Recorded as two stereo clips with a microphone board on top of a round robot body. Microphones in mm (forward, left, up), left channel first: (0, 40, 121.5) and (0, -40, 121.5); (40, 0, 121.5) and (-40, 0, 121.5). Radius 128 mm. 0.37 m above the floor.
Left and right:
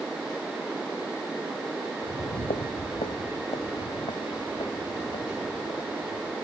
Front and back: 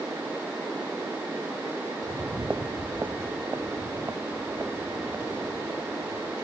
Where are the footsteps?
100° left; by 6.3 s 115° left.